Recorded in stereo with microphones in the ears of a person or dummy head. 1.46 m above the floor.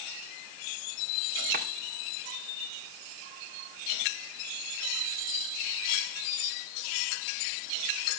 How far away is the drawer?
About 1.7 m.